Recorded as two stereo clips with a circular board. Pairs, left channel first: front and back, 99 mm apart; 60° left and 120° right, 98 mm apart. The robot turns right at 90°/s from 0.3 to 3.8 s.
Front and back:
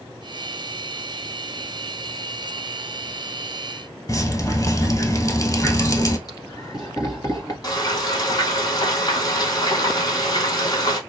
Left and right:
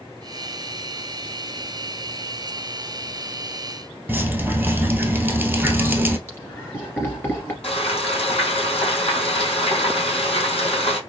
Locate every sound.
4.1 s dripping: 50° right, 0.9 m
6.3 s laughter: 5° left, 2 m
7.6 s frying: 45° left, 2 m